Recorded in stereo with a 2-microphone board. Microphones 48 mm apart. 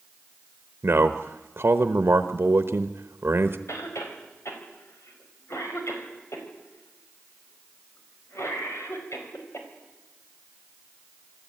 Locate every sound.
0.8 s a man speaking: 55° right (ahead or behind), 1.0 m
3.7 s a cough: 75° left (ahead or behind), 5 m